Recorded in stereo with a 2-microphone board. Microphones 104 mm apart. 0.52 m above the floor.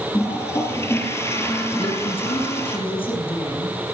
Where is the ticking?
I don't hear ticking.